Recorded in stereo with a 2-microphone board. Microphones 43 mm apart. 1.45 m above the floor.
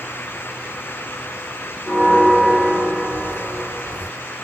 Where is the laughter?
No laughter in this recording.